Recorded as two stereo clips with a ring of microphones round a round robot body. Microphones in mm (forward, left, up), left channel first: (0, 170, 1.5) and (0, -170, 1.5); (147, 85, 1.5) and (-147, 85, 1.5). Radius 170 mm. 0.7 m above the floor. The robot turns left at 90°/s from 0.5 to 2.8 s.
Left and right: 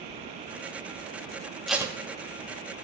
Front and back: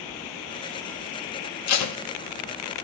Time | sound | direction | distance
1.7 | tape being pulled | straight ahead | 0.8 m